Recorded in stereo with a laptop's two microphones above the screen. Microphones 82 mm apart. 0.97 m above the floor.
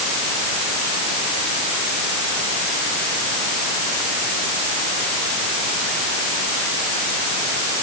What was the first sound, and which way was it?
Only background noise.